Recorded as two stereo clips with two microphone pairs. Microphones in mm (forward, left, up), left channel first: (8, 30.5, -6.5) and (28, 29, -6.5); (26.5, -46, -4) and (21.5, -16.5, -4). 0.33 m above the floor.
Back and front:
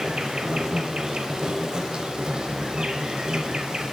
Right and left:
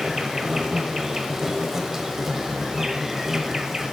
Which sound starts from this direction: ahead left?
An insect, at 0.0 s.